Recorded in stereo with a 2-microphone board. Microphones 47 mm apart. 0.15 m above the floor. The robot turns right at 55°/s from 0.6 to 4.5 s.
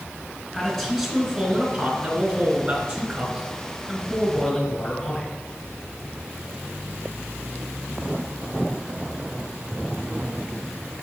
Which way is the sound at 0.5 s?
5° right (ahead or behind).